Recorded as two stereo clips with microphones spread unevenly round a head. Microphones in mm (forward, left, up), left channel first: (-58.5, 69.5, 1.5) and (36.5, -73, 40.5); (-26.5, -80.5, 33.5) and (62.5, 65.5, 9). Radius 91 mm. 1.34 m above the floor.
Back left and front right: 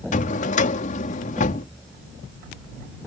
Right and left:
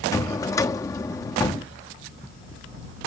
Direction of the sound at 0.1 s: 175° left.